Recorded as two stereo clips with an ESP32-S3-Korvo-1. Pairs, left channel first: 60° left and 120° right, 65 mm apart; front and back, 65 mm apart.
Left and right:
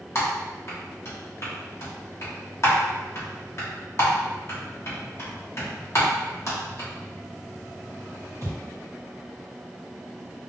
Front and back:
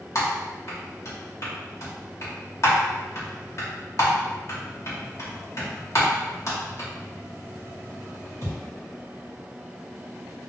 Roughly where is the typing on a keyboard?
Ahead left.